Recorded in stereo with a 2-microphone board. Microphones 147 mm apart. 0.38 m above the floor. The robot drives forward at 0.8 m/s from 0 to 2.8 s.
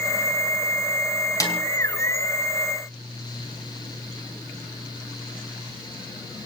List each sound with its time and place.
1.4 s a snare drum: 25° left (ahead or behind), 4 m; by 1.6 s 20° left (ahead or behind), 4.5 m